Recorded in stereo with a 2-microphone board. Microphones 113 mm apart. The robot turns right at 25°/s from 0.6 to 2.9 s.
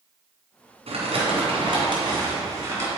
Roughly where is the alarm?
I don't hear an alarm.